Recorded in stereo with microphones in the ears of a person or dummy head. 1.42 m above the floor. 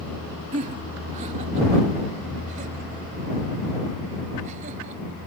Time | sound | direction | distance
0.5 | laughter | 40° right (ahead or behind) | ?